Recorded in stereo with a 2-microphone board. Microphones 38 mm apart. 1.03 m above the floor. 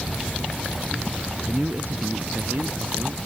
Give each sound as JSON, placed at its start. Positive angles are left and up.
{"t": 1.5, "sound": "a man speaking", "side_deg": -45}